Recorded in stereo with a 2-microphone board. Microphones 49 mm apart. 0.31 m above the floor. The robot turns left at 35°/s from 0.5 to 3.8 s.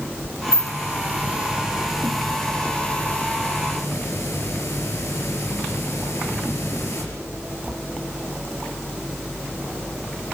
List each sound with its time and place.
0.5 s a hiss: 120° right, 5 m; by 7.0 s 120° left, 5 m